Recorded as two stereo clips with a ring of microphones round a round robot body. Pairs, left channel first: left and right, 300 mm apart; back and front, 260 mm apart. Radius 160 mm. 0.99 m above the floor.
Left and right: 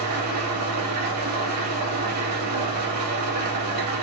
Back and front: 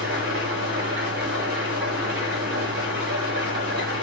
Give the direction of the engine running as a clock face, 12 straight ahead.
2 o'clock.